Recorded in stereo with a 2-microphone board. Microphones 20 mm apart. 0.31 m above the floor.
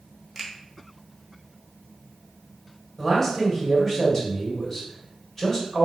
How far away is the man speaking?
About 1.7 m.